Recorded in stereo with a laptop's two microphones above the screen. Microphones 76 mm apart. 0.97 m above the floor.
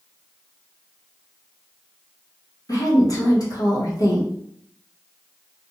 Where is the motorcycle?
I don't hear a motorcycle.